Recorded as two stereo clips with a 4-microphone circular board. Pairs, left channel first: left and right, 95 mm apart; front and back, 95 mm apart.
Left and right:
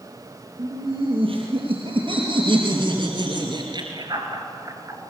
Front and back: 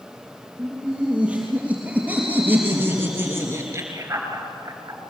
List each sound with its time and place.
0.6 s laughter: 100° right, 6 m; by 5.0 s 140° right, 3 m